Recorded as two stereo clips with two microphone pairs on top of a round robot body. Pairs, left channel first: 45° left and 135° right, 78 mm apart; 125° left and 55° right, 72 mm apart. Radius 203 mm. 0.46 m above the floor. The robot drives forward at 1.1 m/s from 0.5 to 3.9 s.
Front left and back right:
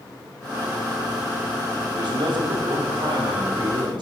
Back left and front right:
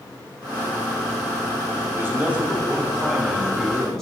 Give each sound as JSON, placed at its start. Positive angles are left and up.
{"t": 1.9, "sound": "a man speaking", "azimuth_deg": -115, "distance_m": 1.7}